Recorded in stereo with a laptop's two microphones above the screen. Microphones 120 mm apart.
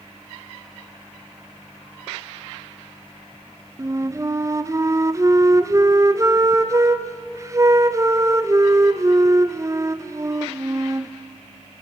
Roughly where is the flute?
Right.